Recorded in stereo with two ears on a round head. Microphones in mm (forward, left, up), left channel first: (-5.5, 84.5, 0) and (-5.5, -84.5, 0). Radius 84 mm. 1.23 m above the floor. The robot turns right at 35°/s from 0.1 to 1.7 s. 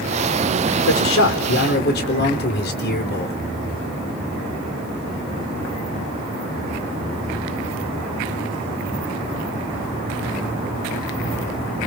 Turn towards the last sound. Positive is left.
turn(degrees=55)  # may be behind; listen again after turning